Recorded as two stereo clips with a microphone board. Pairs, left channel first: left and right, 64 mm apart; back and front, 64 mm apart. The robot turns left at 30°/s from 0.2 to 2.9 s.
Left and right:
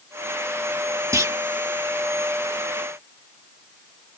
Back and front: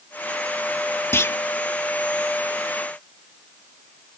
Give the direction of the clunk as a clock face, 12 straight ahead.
4 o'clock.